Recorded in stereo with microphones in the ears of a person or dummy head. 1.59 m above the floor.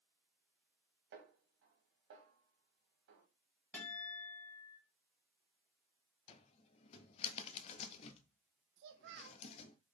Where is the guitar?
5° left (ahead or behind), 2.5 m.